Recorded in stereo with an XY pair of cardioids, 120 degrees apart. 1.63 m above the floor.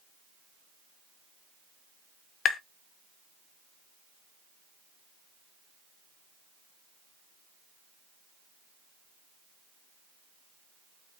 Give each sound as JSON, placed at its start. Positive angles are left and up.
{"t": 2.5, "sound": "tapping", "azimuth_deg": 50, "distance_m": 0.5}